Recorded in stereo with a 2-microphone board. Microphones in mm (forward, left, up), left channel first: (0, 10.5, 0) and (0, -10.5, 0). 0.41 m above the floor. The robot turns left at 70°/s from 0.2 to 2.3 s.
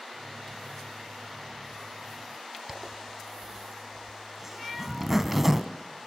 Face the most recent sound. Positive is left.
turn(degrees=-10)  # may be behind; listen again after turning